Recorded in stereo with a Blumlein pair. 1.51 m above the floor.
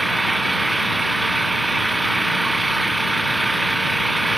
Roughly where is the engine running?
Ahead.